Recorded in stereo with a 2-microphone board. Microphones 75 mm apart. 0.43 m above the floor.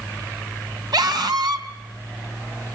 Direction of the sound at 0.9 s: 65° right (ahead or behind).